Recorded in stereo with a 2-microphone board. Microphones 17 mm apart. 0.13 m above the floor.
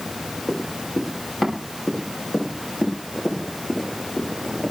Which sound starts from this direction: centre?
Running footsteps, at 0.5 s.